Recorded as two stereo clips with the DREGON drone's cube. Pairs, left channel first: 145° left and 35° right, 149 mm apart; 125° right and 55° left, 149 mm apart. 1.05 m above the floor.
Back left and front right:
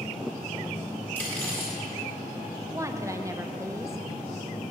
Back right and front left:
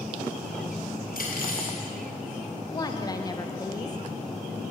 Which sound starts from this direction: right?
A woman speaking, at 2.7 s.